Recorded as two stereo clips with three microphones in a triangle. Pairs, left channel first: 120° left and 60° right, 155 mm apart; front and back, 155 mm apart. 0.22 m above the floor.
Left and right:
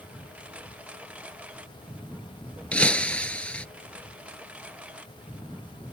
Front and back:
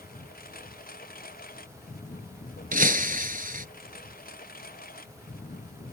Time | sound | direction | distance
0.0 | a lawn mower | 20° left | ?
2.7 | breaking glass | 160° right | ?